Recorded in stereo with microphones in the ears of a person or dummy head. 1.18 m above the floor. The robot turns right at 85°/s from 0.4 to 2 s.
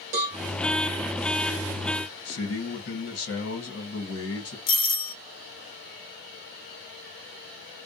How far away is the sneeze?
No sneeze in this recording.